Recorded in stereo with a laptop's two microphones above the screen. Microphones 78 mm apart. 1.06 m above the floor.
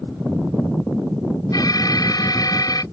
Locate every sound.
1.5 s an alarm: 55° left (ahead or behind)